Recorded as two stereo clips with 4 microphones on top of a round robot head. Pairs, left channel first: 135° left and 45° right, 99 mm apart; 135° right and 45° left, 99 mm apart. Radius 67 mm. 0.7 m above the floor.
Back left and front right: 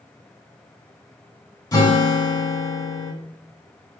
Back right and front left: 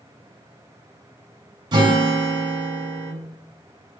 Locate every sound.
1.7 s a guitar: 85° left, 1.8 m